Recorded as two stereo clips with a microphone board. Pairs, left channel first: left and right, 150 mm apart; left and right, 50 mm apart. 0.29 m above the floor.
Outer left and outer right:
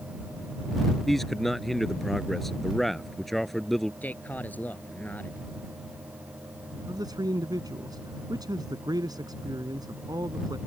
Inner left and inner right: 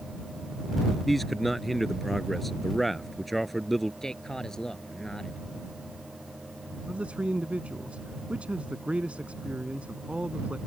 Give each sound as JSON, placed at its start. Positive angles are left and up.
{"t": 1.1, "sound": "a man speaking", "side_deg": 0}
{"t": 4.0, "sound": "a man speaking", "side_deg": 10}
{"t": 6.9, "sound": "a man speaking", "side_deg": -25}